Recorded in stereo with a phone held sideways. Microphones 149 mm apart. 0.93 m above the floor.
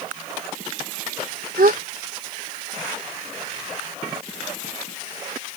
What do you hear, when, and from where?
1.6 s a gasp: 80° right